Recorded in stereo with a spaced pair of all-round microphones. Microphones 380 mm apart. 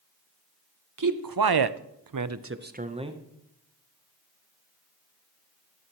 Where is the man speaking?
55° right (ahead or behind), 0.8 m; by 3.2 s 10° right (ahead or behind), 1.0 m.